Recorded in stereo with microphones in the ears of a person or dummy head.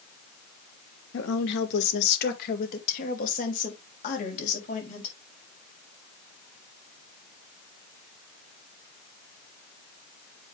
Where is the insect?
No insect in this recording.